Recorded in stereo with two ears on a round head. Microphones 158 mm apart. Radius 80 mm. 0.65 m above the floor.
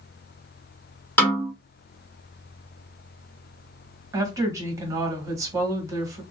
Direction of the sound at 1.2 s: 10° left (ahead or behind).